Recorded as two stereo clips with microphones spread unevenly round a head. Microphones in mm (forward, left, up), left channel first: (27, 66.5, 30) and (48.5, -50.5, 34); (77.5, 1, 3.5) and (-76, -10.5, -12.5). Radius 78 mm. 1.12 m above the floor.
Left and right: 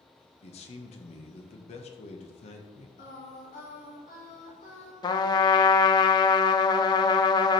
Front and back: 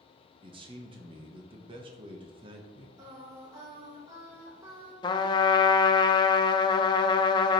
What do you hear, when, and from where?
0.4 s a man speaking: 130° left, 1.0 m
3.0 s singing: 115° left, 3 m
5.0 s a trumpet: 55° left, 0.6 m